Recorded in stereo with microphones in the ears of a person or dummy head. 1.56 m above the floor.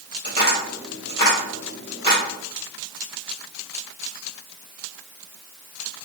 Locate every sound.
0.2 s tapping: 20° left (ahead or behind), 2 m